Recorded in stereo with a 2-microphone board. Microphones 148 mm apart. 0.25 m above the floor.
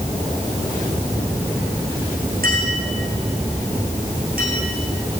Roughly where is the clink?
Right.